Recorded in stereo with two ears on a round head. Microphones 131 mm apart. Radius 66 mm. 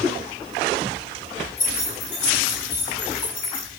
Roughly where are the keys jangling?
Left.